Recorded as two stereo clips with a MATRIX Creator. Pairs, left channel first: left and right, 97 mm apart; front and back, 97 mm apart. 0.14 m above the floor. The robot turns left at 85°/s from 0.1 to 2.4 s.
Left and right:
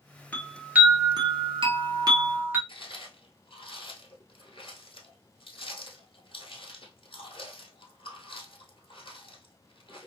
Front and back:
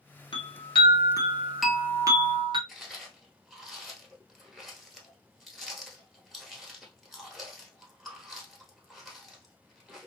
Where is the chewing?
85° left, 1.1 m.